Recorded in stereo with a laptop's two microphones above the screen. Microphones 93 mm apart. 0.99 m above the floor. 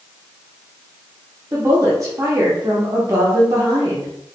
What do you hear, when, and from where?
1.5 s a woman speaking: 35° right (ahead or behind), 0.6 m